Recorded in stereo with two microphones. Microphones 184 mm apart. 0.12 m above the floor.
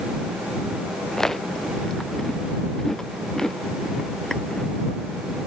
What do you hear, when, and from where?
1.1 s chewing: 5° left (ahead or behind)